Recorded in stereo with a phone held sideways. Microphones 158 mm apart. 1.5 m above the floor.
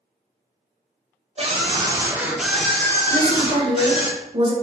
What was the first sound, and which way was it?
A scream, 40° right (ahead or behind).